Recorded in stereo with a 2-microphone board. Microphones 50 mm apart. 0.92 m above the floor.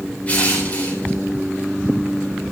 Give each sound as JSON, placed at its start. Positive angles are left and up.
{"t": 0.3, "sound": "crushing", "side_deg": 30, "distance_m": 3.5}